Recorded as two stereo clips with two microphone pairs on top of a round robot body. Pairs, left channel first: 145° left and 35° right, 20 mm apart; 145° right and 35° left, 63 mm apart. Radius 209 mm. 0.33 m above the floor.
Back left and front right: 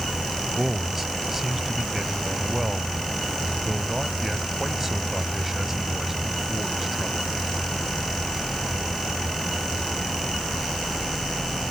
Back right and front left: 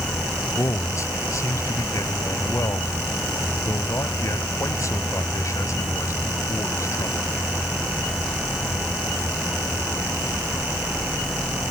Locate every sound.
0.6 s a man speaking: 110° right